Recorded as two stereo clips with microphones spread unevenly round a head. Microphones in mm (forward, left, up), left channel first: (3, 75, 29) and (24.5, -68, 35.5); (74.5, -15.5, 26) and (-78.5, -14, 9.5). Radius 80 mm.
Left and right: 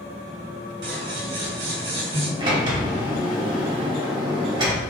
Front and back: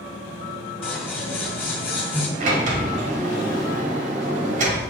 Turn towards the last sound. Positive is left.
turn(degrees=-140)